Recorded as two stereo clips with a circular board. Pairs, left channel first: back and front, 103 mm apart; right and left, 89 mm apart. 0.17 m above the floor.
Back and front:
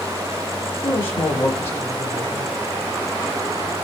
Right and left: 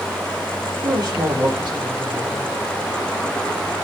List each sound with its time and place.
0.8 s a man speaking: 115° left, 3.5 m